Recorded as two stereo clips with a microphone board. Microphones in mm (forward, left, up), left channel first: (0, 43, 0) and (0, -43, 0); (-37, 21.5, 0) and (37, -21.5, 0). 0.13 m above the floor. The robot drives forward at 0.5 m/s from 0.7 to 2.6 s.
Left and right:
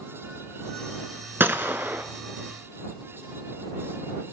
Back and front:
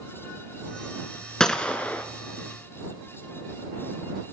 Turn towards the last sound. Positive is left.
turn(degrees=-155)